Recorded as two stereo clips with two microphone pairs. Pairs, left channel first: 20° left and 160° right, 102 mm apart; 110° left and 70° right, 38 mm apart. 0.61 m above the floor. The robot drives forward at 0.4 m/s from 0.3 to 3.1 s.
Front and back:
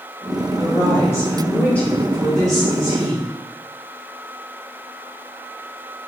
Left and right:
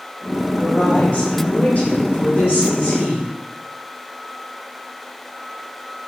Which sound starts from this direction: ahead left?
A woman speaking, at 0.6 s.